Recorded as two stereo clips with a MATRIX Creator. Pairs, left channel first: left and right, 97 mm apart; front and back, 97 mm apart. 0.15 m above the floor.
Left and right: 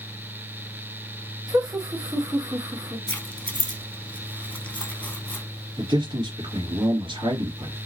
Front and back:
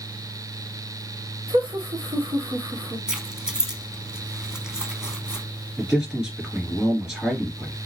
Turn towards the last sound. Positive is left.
turn(degrees=-95)